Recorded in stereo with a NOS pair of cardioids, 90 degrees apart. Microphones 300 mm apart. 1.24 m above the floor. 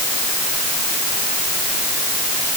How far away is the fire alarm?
No fire alarm in this recording.